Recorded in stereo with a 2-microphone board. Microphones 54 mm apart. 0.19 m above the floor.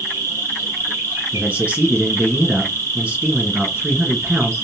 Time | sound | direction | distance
0.0 | an insect | 65° right (ahead or behind) | 2 m
1.3 | a man speaking | 25° right (ahead or behind) | 1.9 m